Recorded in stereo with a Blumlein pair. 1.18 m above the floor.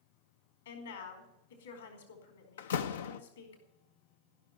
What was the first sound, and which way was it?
A woman speaking, 65° left.